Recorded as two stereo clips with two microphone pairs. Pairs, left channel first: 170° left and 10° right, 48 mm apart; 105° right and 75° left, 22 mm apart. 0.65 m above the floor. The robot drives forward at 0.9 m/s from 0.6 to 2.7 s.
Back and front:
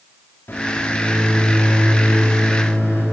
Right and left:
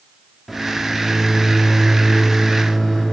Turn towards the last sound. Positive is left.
turn(degrees=175)